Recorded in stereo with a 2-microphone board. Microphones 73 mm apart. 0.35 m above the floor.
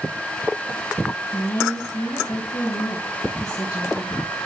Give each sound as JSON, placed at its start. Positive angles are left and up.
{"t": 1.3, "sound": "a woman speaking", "side_deg": 50, "distance_m": 2.5}